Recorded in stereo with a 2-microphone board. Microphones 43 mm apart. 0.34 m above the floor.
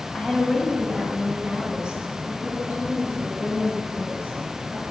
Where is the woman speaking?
5° left (ahead or behind), 2 m; by 4.9 s 35° right (ahead or behind), 6 m.